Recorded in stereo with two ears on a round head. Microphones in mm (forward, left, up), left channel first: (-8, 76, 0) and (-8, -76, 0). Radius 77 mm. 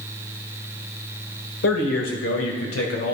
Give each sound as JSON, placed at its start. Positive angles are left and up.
{"t": 1.6, "sound": "a man speaking", "side_deg": 75, "distance_m": 2.0}